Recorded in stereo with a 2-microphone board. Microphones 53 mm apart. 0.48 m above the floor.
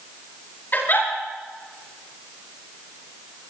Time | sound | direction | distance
0.7 | a giggle | 40° left (ahead or behind) | 8 m